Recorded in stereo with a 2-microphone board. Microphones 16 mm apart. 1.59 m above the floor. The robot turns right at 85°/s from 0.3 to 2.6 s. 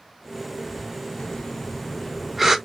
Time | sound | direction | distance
1.2 | breathing | 85° left | 0.9 m